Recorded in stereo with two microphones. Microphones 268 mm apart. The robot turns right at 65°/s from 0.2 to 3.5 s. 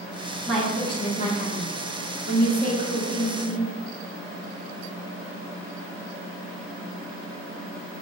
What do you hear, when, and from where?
0.5 s a woman speaking: 5° right, 1.0 m; by 3.7 s 170° right, 1.0 m